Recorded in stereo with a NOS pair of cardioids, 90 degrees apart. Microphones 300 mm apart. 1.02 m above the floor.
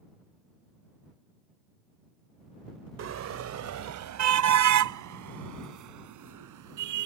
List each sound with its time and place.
3.0 s a car horn: 55° right; by 7.1 s 75° right